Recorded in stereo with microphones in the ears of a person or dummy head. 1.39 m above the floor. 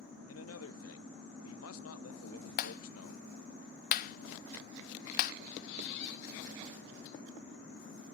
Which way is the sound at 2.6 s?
45° left (ahead or behind).